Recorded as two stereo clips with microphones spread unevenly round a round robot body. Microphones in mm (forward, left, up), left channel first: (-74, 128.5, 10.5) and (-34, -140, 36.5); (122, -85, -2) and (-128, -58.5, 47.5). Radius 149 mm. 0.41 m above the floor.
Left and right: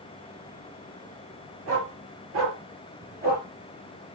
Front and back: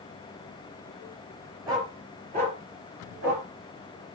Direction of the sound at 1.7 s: 110° right.